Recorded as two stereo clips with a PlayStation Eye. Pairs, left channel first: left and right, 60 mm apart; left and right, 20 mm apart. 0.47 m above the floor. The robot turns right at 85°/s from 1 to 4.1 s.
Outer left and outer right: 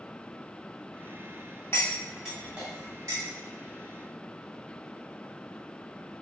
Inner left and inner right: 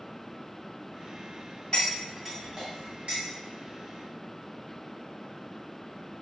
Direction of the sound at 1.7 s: 40° left (ahead or behind).